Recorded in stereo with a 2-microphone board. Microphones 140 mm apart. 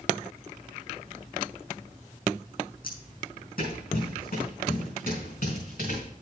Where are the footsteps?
75° left (ahead or behind), 3 m; by 6.0 s 70° left (ahead or behind), 6 m.